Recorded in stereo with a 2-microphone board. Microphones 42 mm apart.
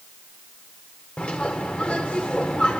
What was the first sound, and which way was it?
A bird, 30° left (ahead or behind).